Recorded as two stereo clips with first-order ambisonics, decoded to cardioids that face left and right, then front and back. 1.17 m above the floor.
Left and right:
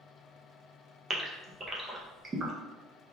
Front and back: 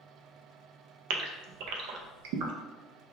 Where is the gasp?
165° right, 0.5 m.